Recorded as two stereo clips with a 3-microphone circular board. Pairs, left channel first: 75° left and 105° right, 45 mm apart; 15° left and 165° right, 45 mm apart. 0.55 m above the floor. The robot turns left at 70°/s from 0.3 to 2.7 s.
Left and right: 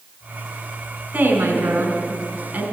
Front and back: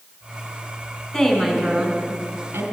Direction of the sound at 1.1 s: 45° right.